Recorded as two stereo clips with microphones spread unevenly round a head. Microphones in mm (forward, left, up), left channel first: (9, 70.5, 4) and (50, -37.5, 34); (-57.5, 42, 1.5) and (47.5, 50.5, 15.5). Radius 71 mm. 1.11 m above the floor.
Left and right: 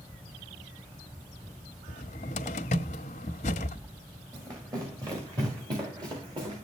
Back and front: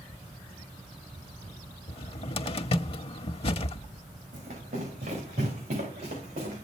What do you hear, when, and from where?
1.9 s a cupboard door: 150° left, 1.0 m
4.3 s running footsteps: 10° right, 8.5 m; by 6.7 s 20° right, 10.5 m